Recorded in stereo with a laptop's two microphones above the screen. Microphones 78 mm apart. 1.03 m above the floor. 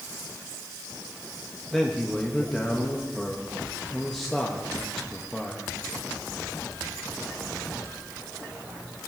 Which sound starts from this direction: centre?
A man speaking, at 1.7 s.